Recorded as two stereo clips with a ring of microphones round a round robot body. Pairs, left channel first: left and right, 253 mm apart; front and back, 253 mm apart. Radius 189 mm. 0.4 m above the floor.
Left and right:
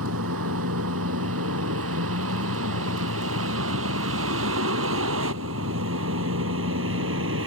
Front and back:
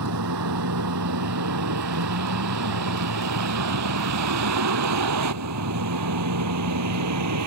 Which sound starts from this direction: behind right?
A vehicle, at 0.0 s.